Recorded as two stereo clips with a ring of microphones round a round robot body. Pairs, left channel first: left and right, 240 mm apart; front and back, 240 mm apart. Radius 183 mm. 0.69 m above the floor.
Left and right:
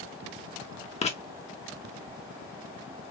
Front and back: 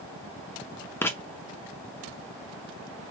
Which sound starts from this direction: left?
Writing, at 1.0 s.